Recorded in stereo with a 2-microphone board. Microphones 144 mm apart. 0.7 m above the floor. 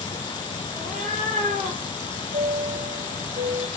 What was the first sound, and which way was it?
A cat meowing, 60° right (ahead or behind).